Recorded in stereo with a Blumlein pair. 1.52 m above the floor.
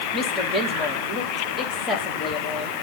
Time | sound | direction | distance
0.1 | a woman speaking | 20° left | 3 m